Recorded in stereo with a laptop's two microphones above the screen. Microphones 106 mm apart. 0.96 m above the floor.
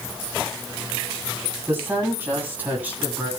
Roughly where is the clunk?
I don't hear a clunk.